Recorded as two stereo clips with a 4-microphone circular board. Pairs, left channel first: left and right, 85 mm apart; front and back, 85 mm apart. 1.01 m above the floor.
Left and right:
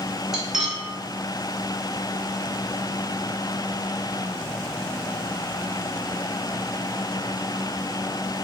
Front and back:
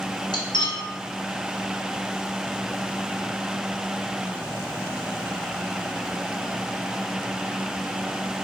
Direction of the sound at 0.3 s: 10° right.